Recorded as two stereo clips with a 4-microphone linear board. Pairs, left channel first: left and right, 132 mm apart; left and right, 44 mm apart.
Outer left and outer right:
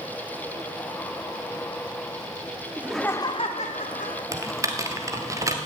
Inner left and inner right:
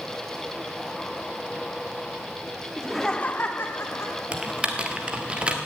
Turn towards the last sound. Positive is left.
turn(degrees=-25)  # may be behind; listen again after turning